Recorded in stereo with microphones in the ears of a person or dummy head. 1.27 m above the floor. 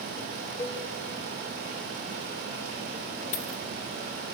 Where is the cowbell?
20° left (ahead or behind), 1.3 m.